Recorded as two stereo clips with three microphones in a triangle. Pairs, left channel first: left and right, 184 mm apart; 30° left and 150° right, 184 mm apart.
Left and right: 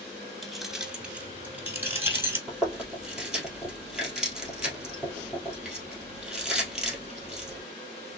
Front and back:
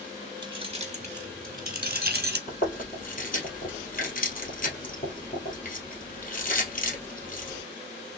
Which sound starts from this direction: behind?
Keys jangling, at 0.4 s.